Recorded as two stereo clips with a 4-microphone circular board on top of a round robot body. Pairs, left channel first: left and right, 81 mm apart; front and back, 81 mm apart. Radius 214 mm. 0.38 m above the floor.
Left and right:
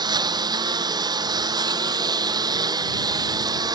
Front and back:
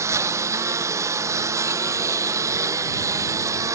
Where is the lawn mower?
125° right; by 3.8 s 130° right.